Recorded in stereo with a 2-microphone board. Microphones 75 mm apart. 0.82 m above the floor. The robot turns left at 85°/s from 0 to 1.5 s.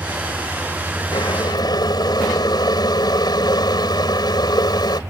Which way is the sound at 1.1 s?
105° left.